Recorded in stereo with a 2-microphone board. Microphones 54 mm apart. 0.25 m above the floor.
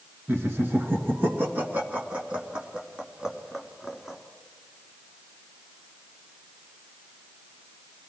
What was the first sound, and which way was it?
Laughter, 45° right (ahead or behind).